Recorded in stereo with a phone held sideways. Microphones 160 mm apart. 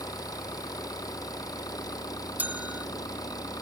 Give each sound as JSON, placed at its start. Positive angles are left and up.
{"t": 0.0, "sound": "an engine running", "side_deg": 25}
{"t": 2.4, "sound": "a bell", "side_deg": -10}